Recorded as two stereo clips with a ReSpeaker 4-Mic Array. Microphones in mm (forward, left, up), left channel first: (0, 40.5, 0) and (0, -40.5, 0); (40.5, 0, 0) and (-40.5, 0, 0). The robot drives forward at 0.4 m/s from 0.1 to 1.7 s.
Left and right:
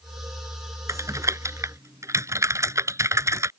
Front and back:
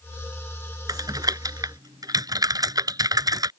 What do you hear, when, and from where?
0.9 s typing on a keyboard: 140° right